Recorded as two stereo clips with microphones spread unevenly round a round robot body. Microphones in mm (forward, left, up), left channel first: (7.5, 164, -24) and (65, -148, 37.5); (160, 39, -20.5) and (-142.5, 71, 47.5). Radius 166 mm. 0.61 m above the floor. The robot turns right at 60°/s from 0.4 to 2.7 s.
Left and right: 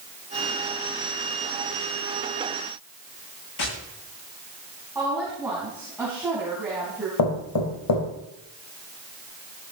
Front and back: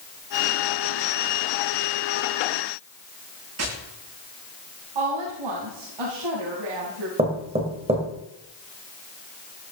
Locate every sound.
3.6 s tapping: 135° left, 9.5 m
5.0 s a woman speaking: 165° right, 4.5 m
7.2 s knocking: 100° left, 3 m